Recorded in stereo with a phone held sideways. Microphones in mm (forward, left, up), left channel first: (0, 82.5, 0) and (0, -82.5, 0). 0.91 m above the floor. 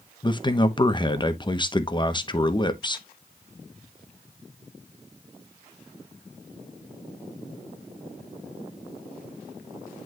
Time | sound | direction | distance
0.2 | a man speaking | 30° left (ahead or behind) | 0.9 m